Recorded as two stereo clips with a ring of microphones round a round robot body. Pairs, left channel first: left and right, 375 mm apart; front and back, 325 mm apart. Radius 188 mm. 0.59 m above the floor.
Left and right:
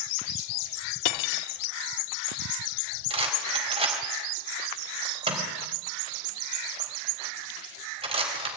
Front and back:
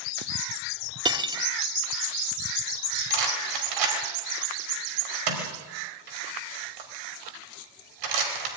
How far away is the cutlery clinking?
About 0.9 m.